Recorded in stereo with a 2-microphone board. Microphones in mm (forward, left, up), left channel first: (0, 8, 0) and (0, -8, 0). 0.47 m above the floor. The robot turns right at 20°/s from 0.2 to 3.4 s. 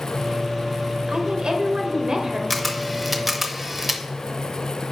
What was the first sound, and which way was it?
A woman speaking, 60° right (ahead or behind).